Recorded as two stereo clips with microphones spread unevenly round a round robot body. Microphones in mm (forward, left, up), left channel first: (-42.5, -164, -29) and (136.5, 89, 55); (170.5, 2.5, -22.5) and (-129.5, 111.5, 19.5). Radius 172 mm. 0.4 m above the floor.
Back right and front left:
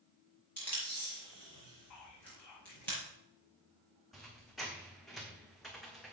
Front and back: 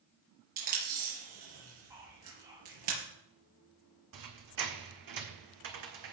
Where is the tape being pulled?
150° left, 6 m.